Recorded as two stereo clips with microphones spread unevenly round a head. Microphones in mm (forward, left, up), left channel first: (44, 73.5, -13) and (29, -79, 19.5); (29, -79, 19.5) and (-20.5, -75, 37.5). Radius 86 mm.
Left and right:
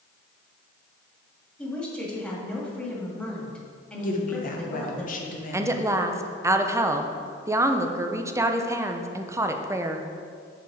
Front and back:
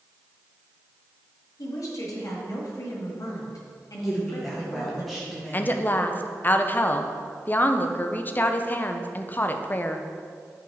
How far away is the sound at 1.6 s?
About 1.6 m.